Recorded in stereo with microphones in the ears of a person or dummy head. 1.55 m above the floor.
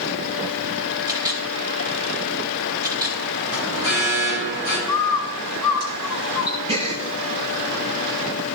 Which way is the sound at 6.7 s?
30° right (ahead or behind).